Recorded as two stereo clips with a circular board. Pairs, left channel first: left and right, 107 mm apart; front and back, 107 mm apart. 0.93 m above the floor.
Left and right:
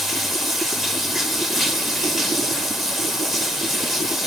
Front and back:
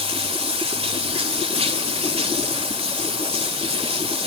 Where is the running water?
Straight behind, 1.5 m.